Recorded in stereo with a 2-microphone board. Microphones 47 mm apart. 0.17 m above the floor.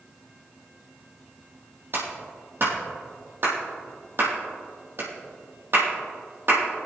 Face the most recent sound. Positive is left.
turn(degrees=-55)  # may be behind; listen again after turning